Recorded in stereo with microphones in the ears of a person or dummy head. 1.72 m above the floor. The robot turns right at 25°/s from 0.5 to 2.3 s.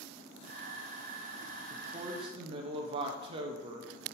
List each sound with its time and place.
1.7 s a woman speaking: 20° right (ahead or behind), 0.8 m; by 3.9 s 30° right (ahead or behind), 0.8 m